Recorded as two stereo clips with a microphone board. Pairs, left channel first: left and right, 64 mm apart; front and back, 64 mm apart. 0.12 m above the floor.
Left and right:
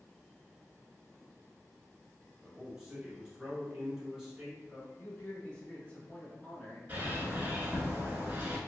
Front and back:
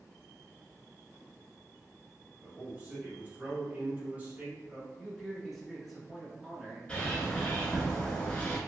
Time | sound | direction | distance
2.4 | a man speaking | 155° right | 1.3 m
5.0 | a man speaking | 90° left | 1.1 m
6.9 | a bird | 60° right | 0.9 m